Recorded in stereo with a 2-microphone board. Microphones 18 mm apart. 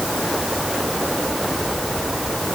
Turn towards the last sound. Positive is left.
No sound to turn to.